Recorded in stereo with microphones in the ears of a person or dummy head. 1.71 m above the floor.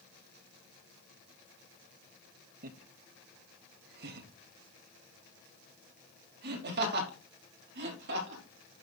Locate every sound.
2.6 s laughter: 55° right (ahead or behind), 0.9 m; by 8.4 s 70° right (ahead or behind), 4 m